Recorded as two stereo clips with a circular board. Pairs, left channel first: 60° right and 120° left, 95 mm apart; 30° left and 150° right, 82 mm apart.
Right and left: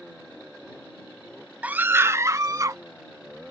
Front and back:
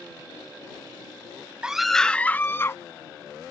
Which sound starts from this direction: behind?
A scream, at 1.6 s.